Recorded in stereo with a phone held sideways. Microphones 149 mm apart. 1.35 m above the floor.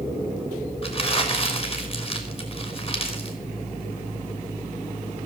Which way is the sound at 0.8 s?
40° left (ahead or behind).